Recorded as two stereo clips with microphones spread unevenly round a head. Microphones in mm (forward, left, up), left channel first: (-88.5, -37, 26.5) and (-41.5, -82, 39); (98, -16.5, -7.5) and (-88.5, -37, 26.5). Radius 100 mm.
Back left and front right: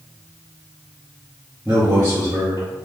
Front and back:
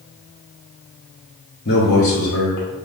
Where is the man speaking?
45° left, 0.8 m; by 2.7 s 20° left, 1.5 m.